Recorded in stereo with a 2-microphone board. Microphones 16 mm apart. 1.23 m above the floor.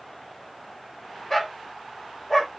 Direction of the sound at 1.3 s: 20° left (ahead or behind).